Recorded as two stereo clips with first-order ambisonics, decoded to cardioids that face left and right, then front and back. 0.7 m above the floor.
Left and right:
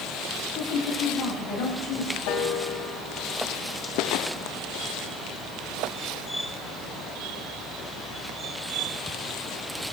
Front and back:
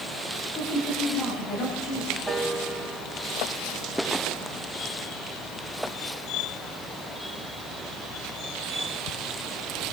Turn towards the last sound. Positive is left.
turn(degrees=100)